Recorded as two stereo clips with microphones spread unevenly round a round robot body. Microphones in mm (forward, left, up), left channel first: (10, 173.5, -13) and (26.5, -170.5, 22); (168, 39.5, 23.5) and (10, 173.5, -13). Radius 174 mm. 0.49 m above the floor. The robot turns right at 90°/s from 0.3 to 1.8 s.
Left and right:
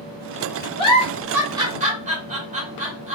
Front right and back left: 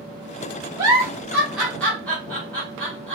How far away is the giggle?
About 1.1 m.